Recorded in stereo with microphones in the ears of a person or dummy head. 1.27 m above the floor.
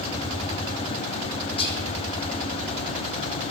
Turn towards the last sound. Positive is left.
turn(degrees=25)  # may be behind; listen again after turning